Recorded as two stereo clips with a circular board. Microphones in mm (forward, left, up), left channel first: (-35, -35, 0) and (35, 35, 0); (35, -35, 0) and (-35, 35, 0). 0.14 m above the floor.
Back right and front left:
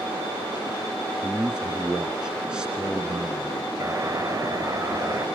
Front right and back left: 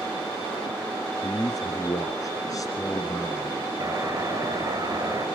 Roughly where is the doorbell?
Left.